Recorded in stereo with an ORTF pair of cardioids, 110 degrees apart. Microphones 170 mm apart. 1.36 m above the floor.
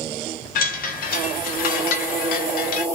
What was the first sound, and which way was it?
A chime, 60° left.